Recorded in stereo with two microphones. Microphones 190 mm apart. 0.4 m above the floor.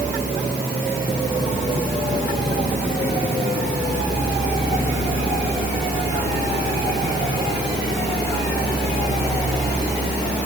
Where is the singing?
I don't hear singing.